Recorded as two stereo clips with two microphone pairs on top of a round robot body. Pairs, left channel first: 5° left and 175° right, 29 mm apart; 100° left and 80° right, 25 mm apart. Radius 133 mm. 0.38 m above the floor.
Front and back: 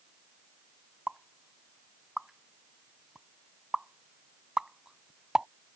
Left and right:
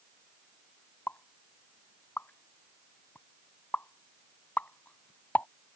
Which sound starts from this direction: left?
A pop, at 1.1 s.